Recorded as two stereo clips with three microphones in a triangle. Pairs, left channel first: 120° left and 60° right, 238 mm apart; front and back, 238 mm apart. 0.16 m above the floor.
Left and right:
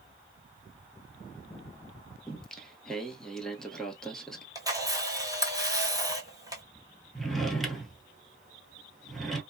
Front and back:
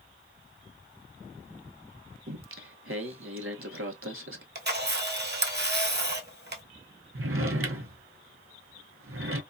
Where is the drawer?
150° right, 0.7 m.